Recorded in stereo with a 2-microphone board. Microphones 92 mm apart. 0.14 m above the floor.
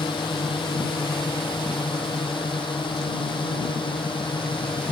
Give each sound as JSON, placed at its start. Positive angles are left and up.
{"t": 0.0, "sound": "a drone", "side_deg": 70}